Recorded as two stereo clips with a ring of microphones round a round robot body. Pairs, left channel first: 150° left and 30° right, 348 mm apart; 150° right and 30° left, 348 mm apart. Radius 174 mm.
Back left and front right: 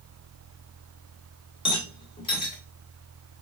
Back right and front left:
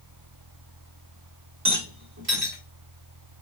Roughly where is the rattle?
Left.